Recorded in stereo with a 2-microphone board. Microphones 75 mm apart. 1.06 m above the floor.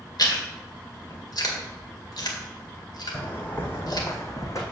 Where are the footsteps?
20° left (ahead or behind), 2.5 m; by 4.6 s 45° left (ahead or behind), 2.5 m.